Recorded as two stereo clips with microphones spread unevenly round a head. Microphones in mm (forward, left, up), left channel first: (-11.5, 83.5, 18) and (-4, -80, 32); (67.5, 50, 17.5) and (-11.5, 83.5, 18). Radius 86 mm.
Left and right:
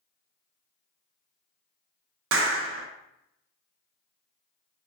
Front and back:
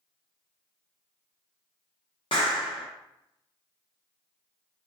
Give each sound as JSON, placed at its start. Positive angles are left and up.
{"t": 2.3, "sound": "a clap", "azimuth_deg": -85, "distance_m": 0.5}